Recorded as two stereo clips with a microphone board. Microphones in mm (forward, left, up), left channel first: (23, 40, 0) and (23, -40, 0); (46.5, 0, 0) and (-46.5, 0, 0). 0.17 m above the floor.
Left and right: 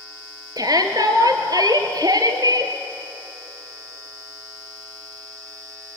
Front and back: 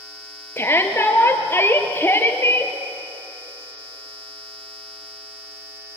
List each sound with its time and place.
0.6 s a shout: 65° right, 3 m